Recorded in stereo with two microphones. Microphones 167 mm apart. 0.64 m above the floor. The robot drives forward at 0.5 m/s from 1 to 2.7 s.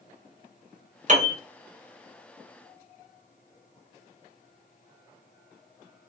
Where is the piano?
50° right (ahead or behind), 0.8 m; by 1.4 s 55° right (ahead or behind), 0.7 m.